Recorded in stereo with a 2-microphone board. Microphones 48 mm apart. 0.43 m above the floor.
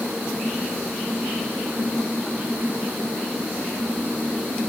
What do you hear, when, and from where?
Only background noise.